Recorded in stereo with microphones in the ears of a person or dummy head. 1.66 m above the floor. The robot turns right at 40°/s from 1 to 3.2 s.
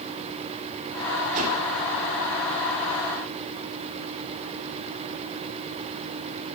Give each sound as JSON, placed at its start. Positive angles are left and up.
{"t": 1.3, "sound": "a whoosh", "side_deg": -50, "distance_m": 8.5}